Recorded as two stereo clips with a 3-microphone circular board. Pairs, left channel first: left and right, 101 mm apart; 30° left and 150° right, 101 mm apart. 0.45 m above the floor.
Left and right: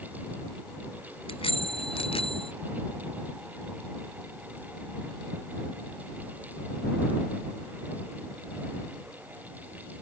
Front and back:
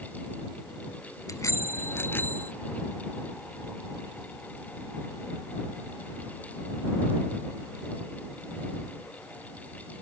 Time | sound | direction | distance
1.3 | a bicycle bell | 85° left | ?